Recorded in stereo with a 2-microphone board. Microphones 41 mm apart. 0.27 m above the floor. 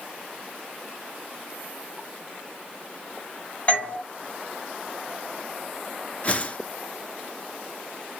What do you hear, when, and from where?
3.7 s a doorbell: 45° left (ahead or behind), 2.5 m
6.2 s a whoosh: 35° left (ahead or behind), 0.6 m